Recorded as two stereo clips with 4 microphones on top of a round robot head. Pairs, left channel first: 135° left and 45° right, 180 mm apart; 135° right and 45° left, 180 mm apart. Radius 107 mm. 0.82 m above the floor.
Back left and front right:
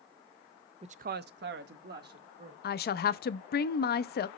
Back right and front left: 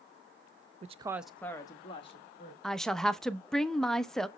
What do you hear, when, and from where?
0.8 s a woman speaking: 5° left, 0.5 m; by 2.5 s 80° right, 1.5 m
2.6 s a woman speaking: 140° left, 0.6 m